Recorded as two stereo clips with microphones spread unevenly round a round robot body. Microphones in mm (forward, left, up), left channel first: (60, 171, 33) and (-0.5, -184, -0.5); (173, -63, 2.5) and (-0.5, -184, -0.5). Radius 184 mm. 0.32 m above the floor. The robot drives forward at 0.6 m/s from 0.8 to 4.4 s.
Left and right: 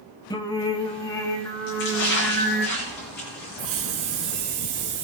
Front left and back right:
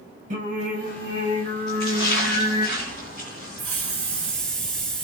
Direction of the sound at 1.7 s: 140° left.